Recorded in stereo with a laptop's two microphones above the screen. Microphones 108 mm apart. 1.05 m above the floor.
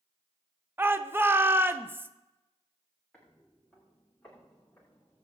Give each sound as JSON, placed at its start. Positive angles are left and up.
{"t": 0.8, "sound": "a shout", "side_deg": -20, "distance_m": 0.5}
{"t": 3.1, "sound": "footsteps", "side_deg": 5, "distance_m": 6.0}